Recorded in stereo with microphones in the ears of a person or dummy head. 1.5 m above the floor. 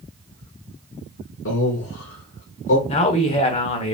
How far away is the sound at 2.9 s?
About 1.1 m.